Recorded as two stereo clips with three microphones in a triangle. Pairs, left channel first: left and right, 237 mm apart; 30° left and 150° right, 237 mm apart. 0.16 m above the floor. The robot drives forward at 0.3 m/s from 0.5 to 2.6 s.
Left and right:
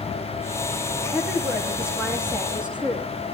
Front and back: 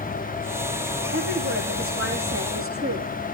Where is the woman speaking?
175° right, 8 m.